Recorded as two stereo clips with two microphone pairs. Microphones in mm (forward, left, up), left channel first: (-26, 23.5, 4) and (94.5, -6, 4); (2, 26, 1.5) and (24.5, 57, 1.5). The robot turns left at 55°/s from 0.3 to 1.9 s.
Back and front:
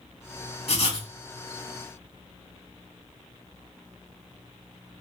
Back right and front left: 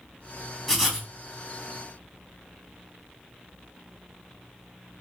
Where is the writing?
140° left, 1.1 m; by 1.1 s 120° left, 1.1 m.